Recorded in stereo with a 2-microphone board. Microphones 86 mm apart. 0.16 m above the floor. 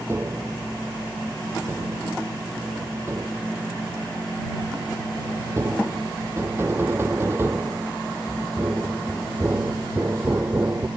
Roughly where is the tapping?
Right.